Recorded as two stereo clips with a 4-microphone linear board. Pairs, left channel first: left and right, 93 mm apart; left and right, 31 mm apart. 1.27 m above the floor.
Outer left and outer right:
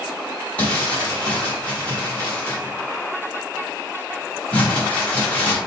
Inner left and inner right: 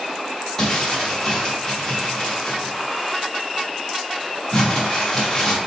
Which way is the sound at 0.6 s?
15° left (ahead or behind).